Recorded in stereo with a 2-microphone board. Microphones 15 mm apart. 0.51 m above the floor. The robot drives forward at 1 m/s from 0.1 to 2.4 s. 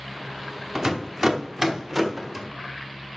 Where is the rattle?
30° right (ahead or behind), 0.9 m; by 2.5 s 15° right (ahead or behind), 1.7 m.